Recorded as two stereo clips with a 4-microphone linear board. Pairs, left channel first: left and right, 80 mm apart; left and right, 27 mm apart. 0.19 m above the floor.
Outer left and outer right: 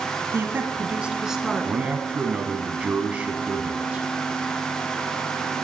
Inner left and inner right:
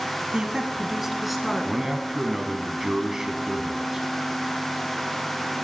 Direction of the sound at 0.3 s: 35° right (ahead or behind).